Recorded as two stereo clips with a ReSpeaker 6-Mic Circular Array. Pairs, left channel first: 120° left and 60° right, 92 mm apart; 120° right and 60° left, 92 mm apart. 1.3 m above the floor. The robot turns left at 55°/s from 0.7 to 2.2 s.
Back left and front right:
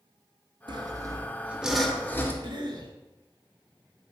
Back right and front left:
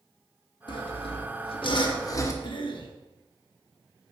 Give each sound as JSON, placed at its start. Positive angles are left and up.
{"t": 0.7, "sound": "sawing", "azimuth_deg": -90, "distance_m": 0.7}
{"t": 2.4, "sound": "a cough", "azimuth_deg": -95, "distance_m": 1.0}